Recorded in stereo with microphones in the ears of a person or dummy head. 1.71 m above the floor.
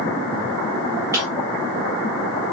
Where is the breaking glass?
10° right (ahead or behind), 1.2 m.